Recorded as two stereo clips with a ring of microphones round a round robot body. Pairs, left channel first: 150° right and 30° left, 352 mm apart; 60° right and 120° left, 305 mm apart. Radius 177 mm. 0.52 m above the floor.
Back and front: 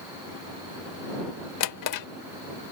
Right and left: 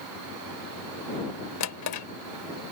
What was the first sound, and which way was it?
A drawer, 110° right.